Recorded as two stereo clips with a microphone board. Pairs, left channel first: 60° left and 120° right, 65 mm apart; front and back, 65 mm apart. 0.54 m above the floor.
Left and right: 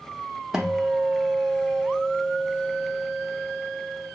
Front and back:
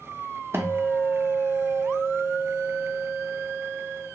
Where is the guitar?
160° left, 0.6 m.